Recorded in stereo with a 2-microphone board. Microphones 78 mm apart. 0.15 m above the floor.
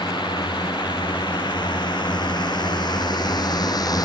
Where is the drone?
75° left (ahead or behind); by 4.1 s 55° left (ahead or behind).